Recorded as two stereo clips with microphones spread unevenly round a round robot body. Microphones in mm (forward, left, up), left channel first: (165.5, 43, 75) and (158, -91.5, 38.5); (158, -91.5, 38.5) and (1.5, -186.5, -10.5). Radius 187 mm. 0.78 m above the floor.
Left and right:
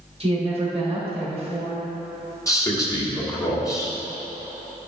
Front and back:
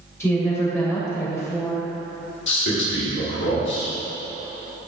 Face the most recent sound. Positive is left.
turn(degrees=15)